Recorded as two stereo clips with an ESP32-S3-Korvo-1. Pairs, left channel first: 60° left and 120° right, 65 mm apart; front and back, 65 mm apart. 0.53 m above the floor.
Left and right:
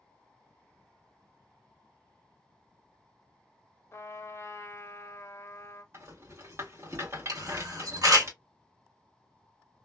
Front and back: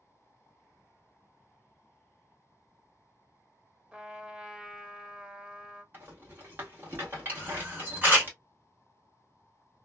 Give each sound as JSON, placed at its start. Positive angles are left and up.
{"t": 3.9, "sound": "a trumpet", "azimuth_deg": 105, "distance_m": 0.6}
{"t": 5.9, "sound": "a rattle", "azimuth_deg": -135, "distance_m": 1.4}
{"t": 7.3, "sound": "a camera shutter", "azimuth_deg": -120, "distance_m": 1.7}